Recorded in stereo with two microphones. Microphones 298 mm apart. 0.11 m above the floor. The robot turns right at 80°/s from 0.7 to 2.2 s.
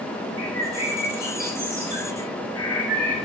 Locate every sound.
0.4 s a bird: 50° left, 3 m; by 3.1 s 170° left, 3 m